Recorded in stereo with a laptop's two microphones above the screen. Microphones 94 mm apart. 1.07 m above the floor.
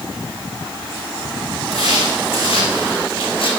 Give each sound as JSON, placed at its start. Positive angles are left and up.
{"t": 1.7, "sound": "footsteps", "side_deg": 80, "distance_m": 5.5}